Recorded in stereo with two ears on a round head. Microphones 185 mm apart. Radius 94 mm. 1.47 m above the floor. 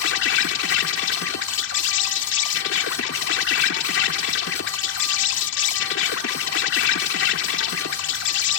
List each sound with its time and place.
0.0 s an insect: 55° left (ahead or behind)